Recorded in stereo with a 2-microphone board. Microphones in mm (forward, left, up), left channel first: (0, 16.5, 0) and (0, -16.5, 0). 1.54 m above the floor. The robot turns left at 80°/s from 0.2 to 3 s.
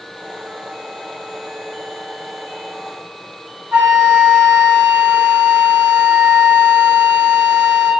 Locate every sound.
3.7 s a flute: 35° right (ahead or behind), 1.4 m